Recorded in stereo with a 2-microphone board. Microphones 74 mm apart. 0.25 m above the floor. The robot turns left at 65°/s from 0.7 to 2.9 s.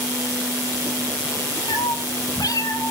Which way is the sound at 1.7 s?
115° left.